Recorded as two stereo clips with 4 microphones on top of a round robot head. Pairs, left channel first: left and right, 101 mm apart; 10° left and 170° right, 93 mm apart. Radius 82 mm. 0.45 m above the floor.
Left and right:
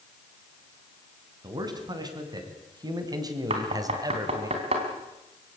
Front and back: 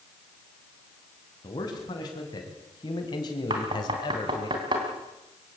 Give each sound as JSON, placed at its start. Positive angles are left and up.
{"t": 1.4, "sound": "a man speaking", "azimuth_deg": -40, "distance_m": 4.5}
{"t": 3.5, "sound": "knocking", "azimuth_deg": -120, "distance_m": 3.5}